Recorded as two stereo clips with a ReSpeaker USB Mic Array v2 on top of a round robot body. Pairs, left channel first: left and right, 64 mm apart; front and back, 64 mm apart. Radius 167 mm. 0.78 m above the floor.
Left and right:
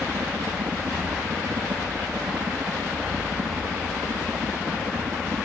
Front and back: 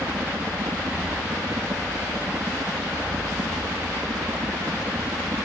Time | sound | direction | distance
0.0 | a helicopter | 135° right | ?